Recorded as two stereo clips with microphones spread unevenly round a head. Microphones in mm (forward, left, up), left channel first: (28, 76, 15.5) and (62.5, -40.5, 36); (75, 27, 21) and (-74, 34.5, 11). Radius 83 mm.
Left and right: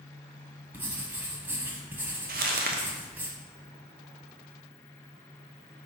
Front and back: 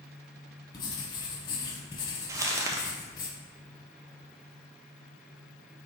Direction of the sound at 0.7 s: 30° right.